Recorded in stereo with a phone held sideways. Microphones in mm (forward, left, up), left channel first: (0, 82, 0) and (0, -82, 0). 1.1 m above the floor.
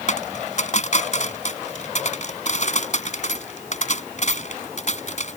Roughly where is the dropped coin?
Left.